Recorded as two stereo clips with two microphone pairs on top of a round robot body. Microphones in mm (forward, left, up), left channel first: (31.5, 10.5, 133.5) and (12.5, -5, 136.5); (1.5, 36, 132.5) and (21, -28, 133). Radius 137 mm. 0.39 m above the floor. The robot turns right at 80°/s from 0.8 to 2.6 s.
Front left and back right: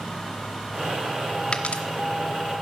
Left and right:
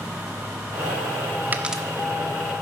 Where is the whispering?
I don't hear whispering.